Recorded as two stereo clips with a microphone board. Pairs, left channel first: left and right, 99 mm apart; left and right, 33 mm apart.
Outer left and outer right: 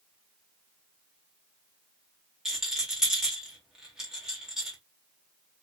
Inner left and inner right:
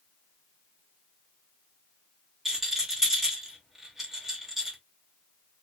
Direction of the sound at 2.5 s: 5° right (ahead or behind).